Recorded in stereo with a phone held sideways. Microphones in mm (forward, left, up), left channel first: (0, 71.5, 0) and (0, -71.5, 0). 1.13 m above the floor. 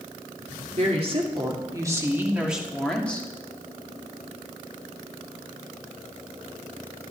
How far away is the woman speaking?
About 2 m.